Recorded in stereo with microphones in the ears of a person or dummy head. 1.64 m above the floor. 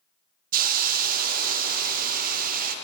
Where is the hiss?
50° right (ahead or behind), 0.5 m.